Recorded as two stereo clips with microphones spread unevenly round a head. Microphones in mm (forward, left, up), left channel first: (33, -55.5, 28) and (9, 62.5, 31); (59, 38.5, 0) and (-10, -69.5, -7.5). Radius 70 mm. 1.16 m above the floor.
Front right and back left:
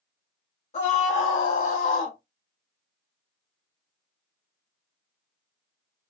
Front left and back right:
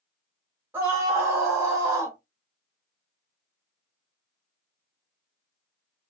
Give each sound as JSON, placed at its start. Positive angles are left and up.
{"t": 0.7, "sound": "a scream", "azimuth_deg": -50, "distance_m": 1.5}